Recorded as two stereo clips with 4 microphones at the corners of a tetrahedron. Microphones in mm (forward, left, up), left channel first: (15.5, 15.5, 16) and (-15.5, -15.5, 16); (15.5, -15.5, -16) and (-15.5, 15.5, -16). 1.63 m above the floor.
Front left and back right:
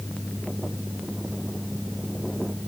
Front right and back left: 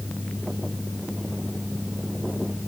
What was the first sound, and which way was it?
Only background noise.